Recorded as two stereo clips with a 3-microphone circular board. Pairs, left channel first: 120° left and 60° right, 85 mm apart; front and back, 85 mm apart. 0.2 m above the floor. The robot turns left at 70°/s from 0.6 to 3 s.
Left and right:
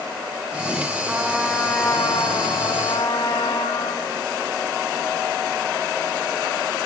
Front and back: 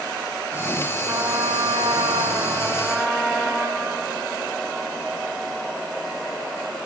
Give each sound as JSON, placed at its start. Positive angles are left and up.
{"t": 1.1, "sound": "a trumpet", "azimuth_deg": -130, "distance_m": 1.9}